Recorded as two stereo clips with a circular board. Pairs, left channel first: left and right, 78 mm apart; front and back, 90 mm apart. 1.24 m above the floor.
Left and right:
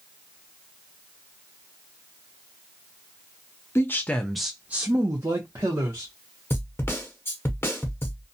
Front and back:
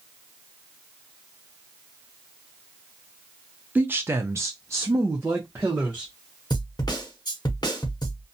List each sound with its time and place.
3.8 s a man speaking: 120° left, 0.6 m; by 6.1 s 115° right, 1.1 m
6.5 s a snare drum: 35° left, 0.8 m